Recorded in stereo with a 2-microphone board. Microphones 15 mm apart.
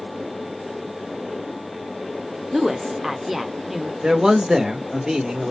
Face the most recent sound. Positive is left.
turn(degrees=-35)  # may be behind; listen again after turning